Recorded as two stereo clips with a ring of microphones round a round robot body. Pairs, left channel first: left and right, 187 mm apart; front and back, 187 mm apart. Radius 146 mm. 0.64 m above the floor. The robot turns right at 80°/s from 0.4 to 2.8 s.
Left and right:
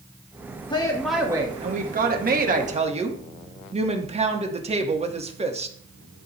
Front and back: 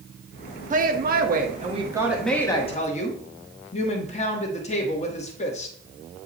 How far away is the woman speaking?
About 1.2 m.